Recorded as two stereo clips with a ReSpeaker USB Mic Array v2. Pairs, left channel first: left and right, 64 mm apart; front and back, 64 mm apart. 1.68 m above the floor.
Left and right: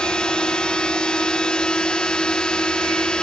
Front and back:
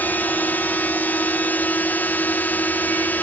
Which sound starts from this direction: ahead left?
A drone, at 0.0 s.